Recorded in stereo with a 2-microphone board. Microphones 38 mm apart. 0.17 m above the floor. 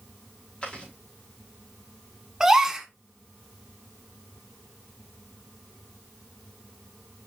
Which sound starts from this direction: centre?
A gasp, at 2.4 s.